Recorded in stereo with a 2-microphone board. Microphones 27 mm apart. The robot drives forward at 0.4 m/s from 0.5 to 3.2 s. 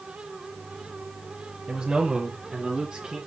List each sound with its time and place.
1.7 s a man speaking: 20° right (ahead or behind), 1.7 m; by 3.2 s 15° right (ahead or behind), 2 m